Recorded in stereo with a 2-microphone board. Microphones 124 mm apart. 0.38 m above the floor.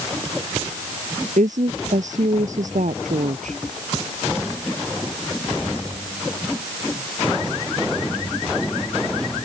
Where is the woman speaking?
80° right.